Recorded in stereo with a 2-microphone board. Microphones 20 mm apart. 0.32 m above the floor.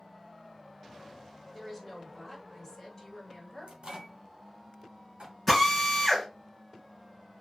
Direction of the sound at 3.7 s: 50° right (ahead or behind).